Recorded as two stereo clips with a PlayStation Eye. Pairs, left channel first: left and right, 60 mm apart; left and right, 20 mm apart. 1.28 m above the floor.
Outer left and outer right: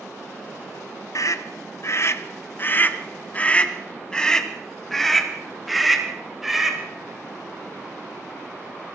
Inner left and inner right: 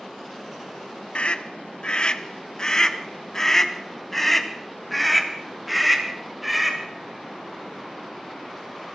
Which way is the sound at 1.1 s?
65° left (ahead or behind).